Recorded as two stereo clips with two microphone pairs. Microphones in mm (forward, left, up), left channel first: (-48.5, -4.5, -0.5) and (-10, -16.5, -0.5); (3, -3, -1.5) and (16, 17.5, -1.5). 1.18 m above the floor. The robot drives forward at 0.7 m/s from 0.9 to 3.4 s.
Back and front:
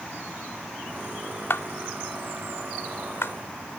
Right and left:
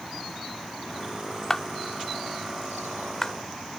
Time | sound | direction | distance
1.5 | a clap | 165° left | ?